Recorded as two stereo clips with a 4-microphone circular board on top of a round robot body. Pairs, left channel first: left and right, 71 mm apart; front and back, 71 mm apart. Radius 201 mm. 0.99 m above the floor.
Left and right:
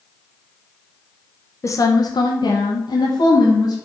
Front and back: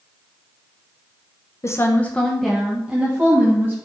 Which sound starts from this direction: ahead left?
A woman speaking, at 1.6 s.